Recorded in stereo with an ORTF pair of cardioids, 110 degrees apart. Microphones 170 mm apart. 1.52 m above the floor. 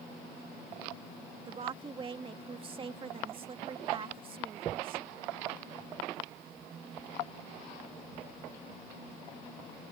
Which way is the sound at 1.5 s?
30° right.